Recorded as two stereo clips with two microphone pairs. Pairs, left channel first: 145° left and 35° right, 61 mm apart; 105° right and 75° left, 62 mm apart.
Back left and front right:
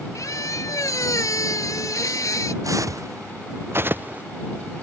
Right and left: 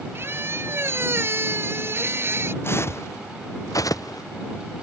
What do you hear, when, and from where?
0.1 s a squeak: 120° left
2.6 s footsteps: 60° right; by 4.2 s 100° right